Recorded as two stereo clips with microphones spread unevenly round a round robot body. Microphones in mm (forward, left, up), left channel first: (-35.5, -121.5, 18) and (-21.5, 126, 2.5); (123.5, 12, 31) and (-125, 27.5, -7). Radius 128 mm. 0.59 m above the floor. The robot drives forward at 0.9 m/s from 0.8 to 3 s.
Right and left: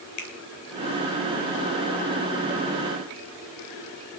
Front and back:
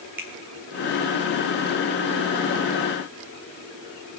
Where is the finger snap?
105° right, 2.5 m.